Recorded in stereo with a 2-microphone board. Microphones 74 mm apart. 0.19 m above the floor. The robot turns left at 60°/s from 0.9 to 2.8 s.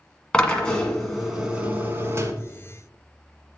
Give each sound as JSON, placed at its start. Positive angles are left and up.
{"t": 0.3, "sound": "a drill", "azimuth_deg": 15, "distance_m": 1.4}